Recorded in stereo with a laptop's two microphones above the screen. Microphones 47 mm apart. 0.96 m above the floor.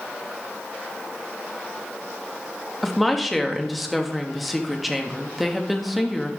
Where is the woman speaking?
Centre (ahead or behind), 1.4 m.